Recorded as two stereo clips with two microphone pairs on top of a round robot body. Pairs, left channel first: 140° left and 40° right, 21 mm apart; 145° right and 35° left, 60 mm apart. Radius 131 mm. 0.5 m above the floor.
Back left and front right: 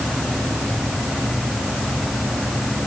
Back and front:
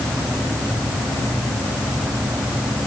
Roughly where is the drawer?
I don't hear a drawer.